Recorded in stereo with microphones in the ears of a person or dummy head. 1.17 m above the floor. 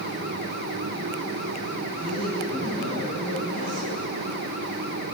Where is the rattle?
No rattle in this recording.